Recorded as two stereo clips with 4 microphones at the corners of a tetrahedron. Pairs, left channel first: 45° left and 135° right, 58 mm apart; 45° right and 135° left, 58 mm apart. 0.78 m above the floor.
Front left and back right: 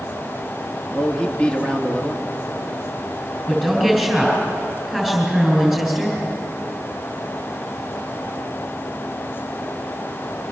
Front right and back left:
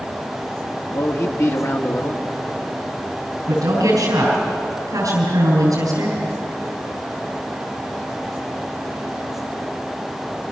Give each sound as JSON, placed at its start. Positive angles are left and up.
{"t": 0.9, "sound": "a man speaking", "azimuth_deg": -25, "distance_m": 1.8}
{"t": 3.5, "sound": "a woman speaking", "azimuth_deg": 130, "distance_m": 7.0}